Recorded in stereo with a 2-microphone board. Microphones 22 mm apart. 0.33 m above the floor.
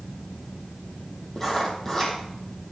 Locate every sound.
1.4 s writing: 15° left (ahead or behind), 4 m